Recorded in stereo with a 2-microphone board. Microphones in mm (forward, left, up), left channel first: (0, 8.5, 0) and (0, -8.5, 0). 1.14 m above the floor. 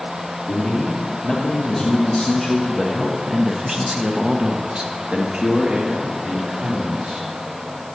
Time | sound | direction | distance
0.5 | a man speaking | 25° left (ahead or behind) | 2.5 m